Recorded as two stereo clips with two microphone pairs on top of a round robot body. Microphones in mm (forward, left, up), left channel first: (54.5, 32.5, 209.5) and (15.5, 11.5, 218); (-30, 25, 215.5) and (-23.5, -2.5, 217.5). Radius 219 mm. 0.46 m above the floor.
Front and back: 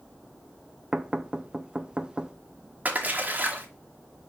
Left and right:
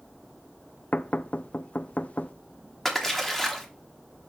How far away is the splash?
About 1.5 m.